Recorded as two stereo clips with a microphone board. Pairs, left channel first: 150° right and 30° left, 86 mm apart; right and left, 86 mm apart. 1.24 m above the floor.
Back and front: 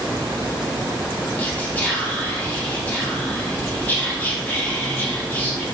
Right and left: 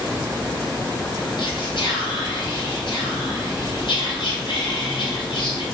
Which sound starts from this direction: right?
Whispering, at 1.4 s.